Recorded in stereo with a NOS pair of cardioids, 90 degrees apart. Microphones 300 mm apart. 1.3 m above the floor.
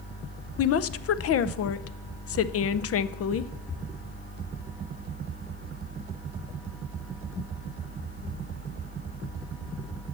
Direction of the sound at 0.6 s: 50° left.